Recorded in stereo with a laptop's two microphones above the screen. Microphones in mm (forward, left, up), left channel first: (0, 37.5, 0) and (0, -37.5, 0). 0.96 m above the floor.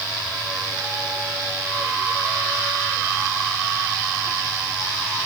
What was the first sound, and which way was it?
Only background noise.